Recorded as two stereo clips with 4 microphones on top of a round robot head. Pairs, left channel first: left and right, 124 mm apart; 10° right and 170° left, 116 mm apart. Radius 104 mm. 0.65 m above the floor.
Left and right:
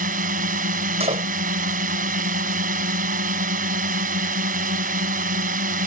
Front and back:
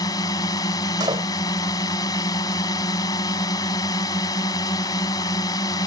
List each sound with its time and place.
0.0 s a drone: 75° right
1.0 s a door slam: 130° right